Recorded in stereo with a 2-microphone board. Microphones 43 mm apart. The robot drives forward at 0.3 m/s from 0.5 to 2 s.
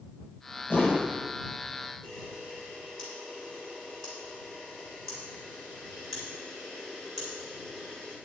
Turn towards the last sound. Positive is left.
turn(degrees=5)  # may be behind; listen again after turning